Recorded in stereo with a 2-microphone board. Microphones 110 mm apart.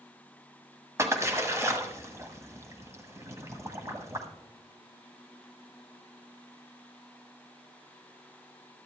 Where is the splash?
25° right (ahead or behind), 1.5 m.